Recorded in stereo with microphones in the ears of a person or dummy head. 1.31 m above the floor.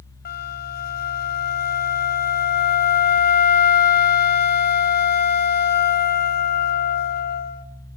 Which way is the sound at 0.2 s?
45° left (ahead or behind).